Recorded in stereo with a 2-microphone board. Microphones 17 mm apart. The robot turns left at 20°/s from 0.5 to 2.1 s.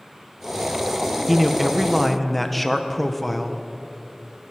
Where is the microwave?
I don't hear a microwave.